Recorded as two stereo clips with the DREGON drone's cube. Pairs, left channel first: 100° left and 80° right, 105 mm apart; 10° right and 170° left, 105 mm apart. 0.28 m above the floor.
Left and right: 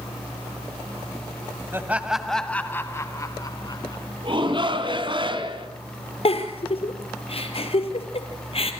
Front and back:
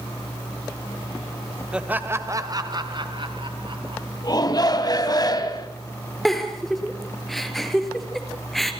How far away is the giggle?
About 2.5 m.